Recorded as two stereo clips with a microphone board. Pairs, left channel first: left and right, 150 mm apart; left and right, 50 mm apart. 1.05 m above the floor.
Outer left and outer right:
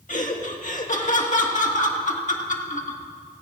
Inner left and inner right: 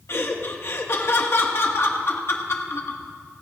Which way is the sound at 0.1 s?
60° left (ahead or behind).